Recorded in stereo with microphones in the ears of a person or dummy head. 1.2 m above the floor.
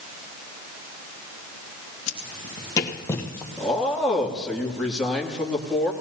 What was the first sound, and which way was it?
Footsteps, 35° left (ahead or behind).